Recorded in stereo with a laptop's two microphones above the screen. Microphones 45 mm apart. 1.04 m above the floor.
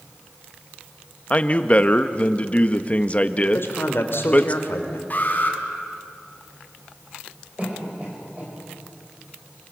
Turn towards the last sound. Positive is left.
turn(degrees=-30)  # may be behind; listen again after turning